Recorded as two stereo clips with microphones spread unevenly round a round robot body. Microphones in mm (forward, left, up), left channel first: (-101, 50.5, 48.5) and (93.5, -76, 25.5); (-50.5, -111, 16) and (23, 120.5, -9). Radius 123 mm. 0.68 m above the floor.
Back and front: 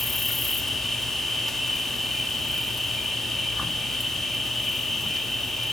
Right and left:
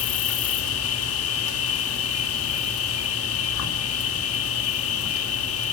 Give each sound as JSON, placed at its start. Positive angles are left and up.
{"t": 0.0, "sound": "an insect", "azimuth_deg": -120, "distance_m": 1.4}